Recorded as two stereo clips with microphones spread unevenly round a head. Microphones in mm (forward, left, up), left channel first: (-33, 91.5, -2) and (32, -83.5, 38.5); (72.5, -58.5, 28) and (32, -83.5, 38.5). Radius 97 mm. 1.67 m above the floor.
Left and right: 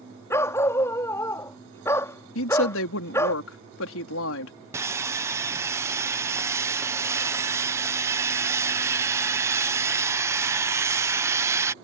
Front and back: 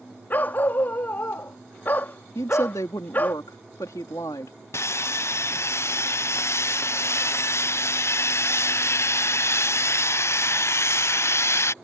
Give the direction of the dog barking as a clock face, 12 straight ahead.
11 o'clock.